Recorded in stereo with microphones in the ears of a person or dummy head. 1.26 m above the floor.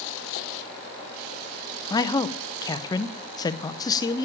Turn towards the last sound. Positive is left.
turn(degrees=20)  # may be behind; listen again after turning